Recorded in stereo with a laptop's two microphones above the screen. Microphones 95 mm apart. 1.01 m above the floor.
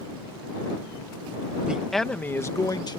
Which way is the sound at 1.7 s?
10° right (ahead or behind).